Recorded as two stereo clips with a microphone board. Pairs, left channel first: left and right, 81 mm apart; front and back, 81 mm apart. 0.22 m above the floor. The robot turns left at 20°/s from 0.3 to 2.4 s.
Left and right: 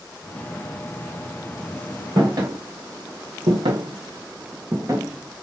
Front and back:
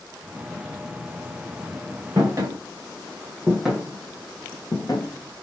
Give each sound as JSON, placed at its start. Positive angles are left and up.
{"t": 2.2, "sound": "footsteps", "azimuth_deg": -125, "distance_m": 1.2}